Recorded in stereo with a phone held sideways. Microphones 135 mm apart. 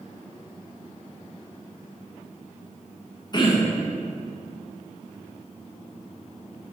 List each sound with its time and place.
3.3 s throat clearing: 35° left (ahead or behind), 0.6 m